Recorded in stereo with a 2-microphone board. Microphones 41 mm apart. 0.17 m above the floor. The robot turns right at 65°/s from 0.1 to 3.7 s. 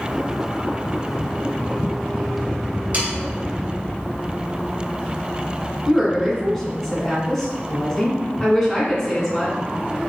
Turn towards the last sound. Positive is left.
turn(degrees=10)  # may be behind; listen again after turning